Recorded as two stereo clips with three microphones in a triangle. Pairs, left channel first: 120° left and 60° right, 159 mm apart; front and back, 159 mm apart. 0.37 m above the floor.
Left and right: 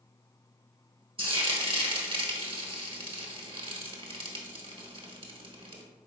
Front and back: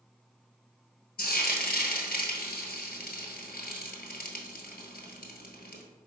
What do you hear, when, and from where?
1.2 s frying: 5° right, 1.1 m